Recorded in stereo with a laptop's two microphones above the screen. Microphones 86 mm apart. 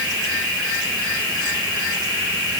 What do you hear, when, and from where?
Only background noise.